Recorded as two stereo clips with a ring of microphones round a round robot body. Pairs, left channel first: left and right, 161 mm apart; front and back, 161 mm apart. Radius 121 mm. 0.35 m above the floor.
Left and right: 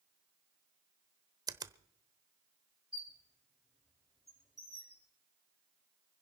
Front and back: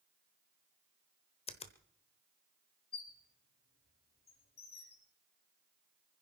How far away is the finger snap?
About 1.0 m.